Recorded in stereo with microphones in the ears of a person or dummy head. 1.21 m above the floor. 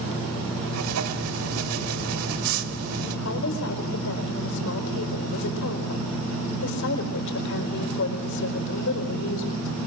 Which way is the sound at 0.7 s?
75° right (ahead or behind).